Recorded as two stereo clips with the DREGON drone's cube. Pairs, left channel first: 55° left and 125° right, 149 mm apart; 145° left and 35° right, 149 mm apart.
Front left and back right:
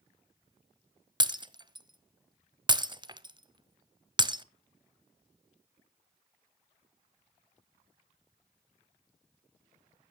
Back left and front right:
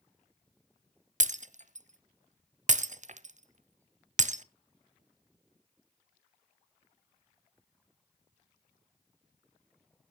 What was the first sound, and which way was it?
Breaking glass, 65° right.